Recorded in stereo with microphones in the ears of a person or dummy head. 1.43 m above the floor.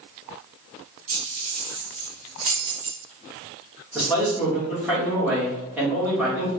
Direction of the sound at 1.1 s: 40° right (ahead or behind).